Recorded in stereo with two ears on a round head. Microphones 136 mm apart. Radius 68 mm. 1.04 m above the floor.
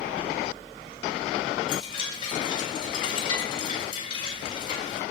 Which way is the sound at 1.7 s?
35° left (ahead or behind).